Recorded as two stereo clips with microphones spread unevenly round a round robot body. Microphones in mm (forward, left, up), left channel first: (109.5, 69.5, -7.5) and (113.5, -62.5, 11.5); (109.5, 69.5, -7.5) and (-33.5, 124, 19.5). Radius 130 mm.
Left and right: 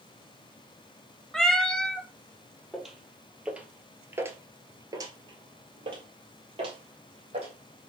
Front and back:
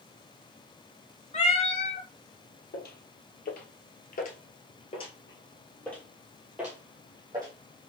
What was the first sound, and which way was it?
A cat meowing, 5° right.